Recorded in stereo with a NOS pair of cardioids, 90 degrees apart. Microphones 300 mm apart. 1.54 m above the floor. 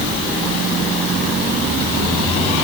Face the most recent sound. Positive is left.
No sound to turn to.